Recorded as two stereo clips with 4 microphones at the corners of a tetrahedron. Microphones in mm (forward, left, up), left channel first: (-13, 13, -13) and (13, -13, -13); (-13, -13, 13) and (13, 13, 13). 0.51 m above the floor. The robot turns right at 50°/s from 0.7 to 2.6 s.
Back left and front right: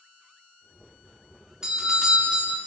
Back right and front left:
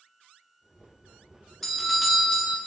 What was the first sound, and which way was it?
A doorbell, 65° right.